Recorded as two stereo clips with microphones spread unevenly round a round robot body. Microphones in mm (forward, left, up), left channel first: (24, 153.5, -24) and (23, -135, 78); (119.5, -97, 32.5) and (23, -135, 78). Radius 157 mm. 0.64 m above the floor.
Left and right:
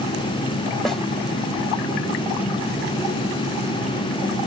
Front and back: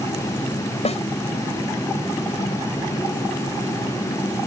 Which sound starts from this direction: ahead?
A snare drum, at 0.8 s.